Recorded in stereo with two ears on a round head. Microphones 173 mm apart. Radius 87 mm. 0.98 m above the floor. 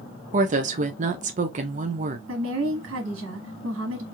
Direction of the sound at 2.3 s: 70° right (ahead or behind).